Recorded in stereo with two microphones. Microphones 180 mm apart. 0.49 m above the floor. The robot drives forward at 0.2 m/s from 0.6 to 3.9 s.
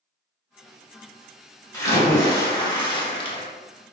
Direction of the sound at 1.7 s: 20° left (ahead or behind).